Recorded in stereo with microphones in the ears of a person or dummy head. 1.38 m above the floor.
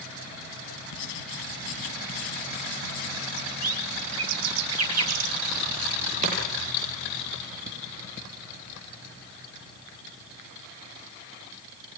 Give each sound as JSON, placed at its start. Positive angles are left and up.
{"t": 0.9, "sound": "writing", "side_deg": 65, "distance_m": 3.0}
{"t": 3.4, "sound": "a bird", "side_deg": -85, "distance_m": 4.0}
{"t": 6.2, "sound": "chopping", "side_deg": -45, "distance_m": 9.0}